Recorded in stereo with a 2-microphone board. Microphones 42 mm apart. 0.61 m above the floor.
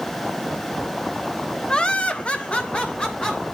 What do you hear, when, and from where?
1.7 s laughter: 20° left (ahead or behind), 0.7 m; by 3.5 s 25° left (ahead or behind), 1.8 m